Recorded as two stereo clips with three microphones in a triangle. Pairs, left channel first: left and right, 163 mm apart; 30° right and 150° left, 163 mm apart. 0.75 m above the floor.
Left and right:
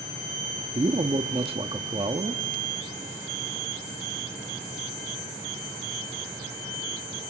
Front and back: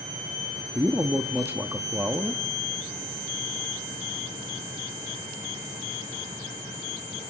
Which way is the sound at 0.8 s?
135° right.